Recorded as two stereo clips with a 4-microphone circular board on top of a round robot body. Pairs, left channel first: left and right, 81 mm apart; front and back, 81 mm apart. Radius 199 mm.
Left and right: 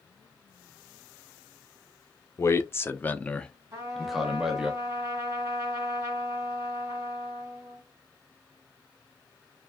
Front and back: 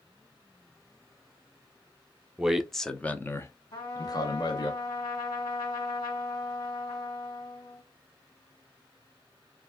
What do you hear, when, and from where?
2.4 s a man speaking: 110° left, 0.9 m; by 4.7 s 10° right, 1.3 m
3.7 s a trumpet: 35° right, 1.8 m